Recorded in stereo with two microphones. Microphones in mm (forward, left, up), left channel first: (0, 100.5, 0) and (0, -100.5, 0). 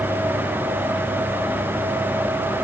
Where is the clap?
No clap in this recording.